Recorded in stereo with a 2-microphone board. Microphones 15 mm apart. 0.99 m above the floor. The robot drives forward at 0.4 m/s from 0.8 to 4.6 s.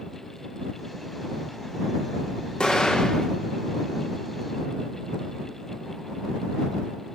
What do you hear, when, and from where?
2.6 s an explosion: 75° left (ahead or behind), 1.5 m; by 3.3 s 85° left, 1.4 m